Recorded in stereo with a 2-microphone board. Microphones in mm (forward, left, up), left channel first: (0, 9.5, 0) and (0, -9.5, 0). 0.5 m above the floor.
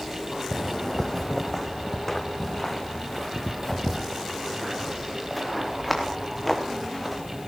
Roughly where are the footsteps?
Left.